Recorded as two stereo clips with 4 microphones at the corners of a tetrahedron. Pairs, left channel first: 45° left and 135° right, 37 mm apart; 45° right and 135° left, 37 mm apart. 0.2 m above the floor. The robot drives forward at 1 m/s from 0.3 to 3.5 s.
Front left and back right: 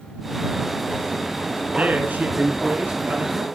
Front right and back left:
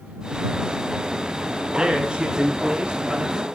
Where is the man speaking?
165° right, 1.9 m; by 3.5 s 170° right, 3.5 m.